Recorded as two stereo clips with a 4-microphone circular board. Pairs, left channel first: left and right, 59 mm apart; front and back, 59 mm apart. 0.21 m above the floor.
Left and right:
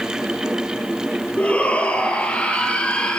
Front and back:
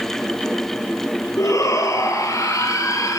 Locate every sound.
1.4 s a shout: 20° left, 5 m; by 3.2 s 15° left, 4.5 m